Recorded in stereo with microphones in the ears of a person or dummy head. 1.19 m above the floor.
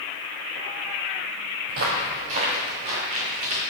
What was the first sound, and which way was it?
Footsteps, 40° right (ahead or behind).